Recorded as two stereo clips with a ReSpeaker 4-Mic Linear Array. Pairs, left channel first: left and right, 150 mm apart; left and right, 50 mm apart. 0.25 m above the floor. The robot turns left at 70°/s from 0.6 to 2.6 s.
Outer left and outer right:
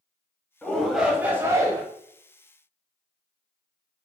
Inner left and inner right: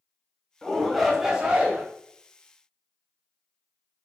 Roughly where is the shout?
Centre.